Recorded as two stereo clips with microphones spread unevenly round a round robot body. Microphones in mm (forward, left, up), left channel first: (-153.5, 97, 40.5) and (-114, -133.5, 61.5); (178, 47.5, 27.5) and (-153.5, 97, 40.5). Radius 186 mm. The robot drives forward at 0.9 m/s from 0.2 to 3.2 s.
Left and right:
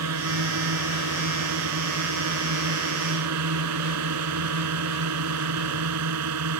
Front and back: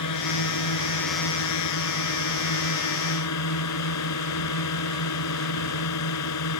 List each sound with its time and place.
0.0 s a drone: 50° right; by 6.6 s 55° right